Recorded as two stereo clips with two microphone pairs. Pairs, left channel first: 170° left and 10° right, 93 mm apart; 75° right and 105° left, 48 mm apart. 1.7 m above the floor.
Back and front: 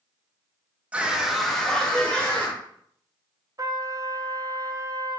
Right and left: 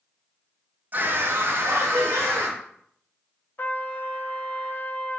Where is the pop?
I don't hear a pop.